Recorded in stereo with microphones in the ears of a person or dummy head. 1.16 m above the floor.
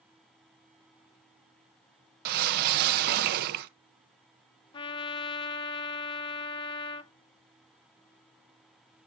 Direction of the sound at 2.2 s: 50° right (ahead or behind).